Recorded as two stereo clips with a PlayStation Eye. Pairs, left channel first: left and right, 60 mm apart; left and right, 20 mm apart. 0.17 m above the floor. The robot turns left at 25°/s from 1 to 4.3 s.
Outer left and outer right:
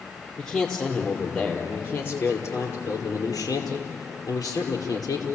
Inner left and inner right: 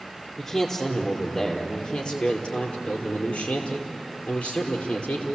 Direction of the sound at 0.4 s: 170° left.